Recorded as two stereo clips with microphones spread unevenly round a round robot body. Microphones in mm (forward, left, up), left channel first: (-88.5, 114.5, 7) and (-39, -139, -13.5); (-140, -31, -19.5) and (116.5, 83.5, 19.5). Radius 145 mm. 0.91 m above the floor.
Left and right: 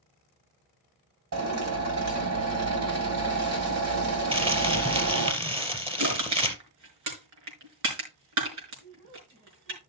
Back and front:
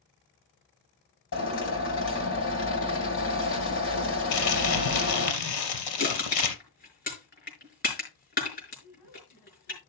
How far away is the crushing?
About 5 m.